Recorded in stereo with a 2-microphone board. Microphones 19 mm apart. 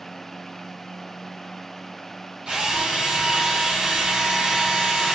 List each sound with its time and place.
2.5 s a drill: 60° right (ahead or behind), 2.5 m